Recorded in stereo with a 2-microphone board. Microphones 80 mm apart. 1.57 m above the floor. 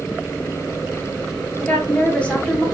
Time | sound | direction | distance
1.6 | a woman speaking | 15° left (ahead or behind) | 1.6 m